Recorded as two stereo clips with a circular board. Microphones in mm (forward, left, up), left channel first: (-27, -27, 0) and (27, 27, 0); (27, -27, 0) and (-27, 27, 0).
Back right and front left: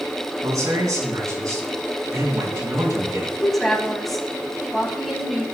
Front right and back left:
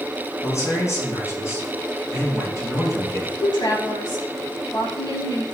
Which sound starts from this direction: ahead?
A man speaking, at 0.4 s.